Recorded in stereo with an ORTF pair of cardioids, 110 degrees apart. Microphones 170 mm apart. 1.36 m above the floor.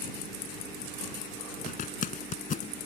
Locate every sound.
1.7 s a zipper: 50° left